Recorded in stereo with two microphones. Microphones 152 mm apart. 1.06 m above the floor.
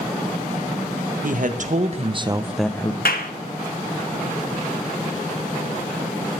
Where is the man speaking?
65° right (ahead or behind), 1.6 m; by 3.0 s 30° left (ahead or behind), 0.8 m.